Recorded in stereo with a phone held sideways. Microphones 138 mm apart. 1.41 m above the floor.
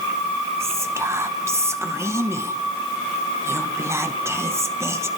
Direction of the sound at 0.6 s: 20° right (ahead or behind).